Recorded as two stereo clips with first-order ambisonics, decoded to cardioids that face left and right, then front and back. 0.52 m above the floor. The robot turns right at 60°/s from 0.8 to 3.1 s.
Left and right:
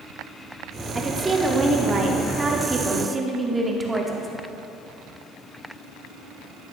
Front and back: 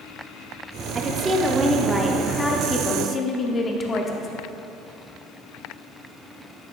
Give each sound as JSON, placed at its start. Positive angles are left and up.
{"t": 0.9, "sound": "a woman speaking", "azimuth_deg": -155, "distance_m": 0.7}